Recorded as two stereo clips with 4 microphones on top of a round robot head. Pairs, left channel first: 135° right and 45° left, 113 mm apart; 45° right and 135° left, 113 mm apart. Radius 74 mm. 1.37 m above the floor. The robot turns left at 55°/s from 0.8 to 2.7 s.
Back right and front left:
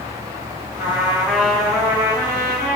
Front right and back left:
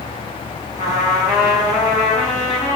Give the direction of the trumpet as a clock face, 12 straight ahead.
12 o'clock.